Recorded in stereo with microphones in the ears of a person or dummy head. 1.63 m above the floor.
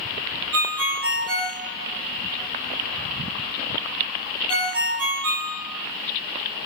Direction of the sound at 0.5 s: 25° right (ahead or behind).